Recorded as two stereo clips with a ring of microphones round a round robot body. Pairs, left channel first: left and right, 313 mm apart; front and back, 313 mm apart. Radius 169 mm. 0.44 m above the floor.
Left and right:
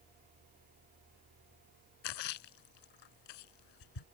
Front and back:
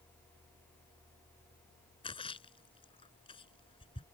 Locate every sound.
2.0 s a splash: 75° left